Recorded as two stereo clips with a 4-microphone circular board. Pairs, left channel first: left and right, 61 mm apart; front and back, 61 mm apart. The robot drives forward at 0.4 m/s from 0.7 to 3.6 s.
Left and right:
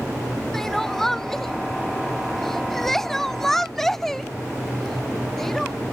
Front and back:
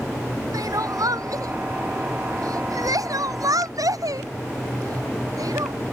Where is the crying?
175° left.